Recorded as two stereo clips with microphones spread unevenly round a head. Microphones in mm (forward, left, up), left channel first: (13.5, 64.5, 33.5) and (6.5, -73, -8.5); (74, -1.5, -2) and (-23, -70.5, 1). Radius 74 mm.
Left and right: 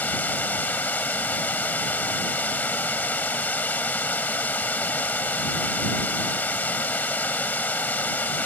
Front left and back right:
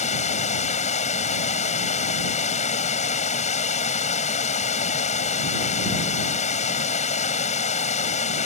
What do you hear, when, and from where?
0.0 s running water: 15° left